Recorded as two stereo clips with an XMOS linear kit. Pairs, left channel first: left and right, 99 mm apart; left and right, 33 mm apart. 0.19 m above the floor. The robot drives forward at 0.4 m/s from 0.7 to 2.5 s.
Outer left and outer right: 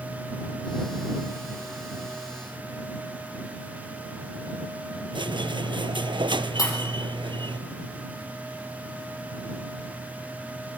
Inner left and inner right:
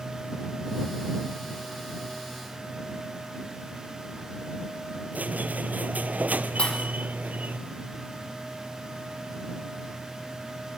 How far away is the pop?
About 5.5 m.